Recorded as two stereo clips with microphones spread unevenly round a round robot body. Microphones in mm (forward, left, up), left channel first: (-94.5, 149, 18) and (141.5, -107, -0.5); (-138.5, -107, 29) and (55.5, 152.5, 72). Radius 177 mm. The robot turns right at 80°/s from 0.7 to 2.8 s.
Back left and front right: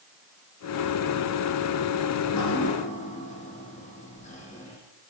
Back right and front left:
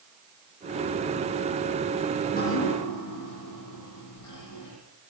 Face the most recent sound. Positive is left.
turn(degrees=-155)